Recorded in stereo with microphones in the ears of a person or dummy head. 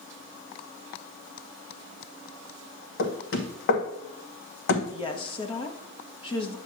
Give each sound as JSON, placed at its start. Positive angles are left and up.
{"t": 3.0, "sound": "knocking", "side_deg": 60, "distance_m": 1.2}
{"t": 4.9, "sound": "a woman speaking", "side_deg": 35, "distance_m": 1.1}